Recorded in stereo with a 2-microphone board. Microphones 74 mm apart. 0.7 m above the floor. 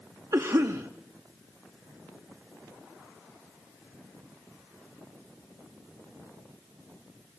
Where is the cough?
45° right (ahead or behind), 0.8 m.